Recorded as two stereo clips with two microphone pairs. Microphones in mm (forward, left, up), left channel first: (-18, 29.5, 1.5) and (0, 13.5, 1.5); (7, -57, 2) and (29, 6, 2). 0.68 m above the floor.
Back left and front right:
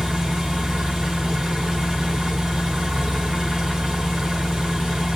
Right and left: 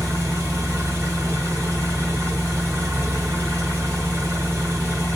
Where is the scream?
I don't hear a scream.